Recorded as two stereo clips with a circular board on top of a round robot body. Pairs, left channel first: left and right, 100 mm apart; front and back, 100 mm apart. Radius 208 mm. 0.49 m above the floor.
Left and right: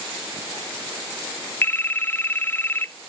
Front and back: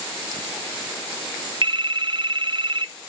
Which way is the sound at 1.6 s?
155° left.